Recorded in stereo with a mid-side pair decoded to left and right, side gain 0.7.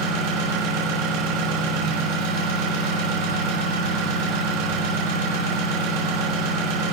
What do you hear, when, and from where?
0.0 s an engine running: 70° right, 8.5 m